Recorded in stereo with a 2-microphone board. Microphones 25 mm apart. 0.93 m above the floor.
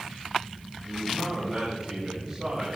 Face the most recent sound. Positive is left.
turn(degrees=-20)  # may be behind; listen again after turning